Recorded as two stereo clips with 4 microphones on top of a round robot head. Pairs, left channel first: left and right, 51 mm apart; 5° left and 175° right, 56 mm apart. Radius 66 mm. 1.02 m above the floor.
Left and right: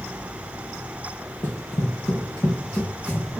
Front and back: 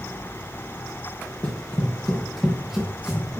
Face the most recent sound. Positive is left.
turn(degrees=110)